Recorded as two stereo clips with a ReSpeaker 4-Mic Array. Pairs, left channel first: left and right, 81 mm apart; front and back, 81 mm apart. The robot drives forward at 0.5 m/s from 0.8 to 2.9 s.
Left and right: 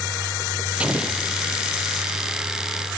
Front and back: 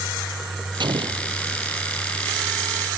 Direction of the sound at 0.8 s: 165° right.